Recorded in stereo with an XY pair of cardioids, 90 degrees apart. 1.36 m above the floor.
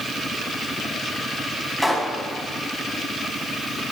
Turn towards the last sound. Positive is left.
turn(degrees=0)